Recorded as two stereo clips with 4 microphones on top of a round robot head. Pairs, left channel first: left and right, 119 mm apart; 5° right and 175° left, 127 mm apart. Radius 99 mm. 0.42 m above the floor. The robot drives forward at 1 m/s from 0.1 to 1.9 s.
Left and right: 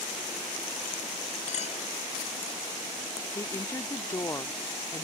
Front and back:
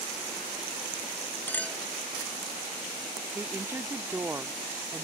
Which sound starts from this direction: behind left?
A woman speaking, at 3.4 s.